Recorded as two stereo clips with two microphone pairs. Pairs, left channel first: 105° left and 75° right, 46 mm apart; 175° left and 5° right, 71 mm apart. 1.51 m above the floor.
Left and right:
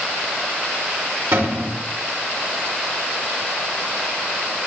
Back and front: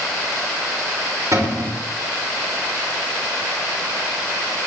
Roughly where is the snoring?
I don't hear snoring.